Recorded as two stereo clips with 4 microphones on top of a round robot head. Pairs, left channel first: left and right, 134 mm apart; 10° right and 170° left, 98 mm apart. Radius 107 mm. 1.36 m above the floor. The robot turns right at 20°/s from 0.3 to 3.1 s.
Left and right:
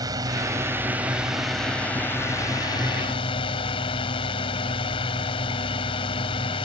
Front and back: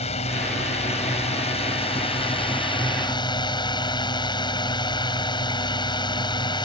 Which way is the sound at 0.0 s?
25° right.